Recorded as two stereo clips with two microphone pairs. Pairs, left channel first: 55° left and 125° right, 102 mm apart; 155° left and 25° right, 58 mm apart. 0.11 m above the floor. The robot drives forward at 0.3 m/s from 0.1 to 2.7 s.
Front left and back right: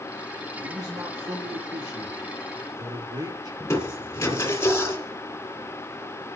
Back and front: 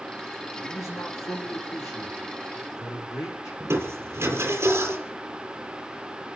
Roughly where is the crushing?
Ahead.